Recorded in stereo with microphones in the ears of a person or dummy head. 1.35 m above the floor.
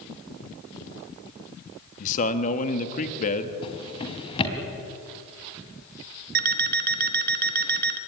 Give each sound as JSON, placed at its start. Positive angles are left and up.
{"t": 2.0, "sound": "a man speaking", "side_deg": 50, "distance_m": 1.8}
{"t": 3.6, "sound": "a drawer", "side_deg": 35, "distance_m": 3.5}
{"t": 6.3, "sound": "an alarm clock", "side_deg": -50, "distance_m": 1.0}